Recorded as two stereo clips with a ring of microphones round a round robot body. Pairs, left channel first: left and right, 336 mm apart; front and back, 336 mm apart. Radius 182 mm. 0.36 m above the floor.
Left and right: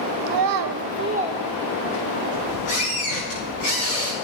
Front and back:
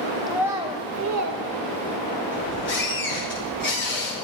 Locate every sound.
0.3 s a child speaking: 90° right, 0.9 m; by 1.4 s 175° right, 0.7 m
2.3 s a squeak: 60° left, 6.5 m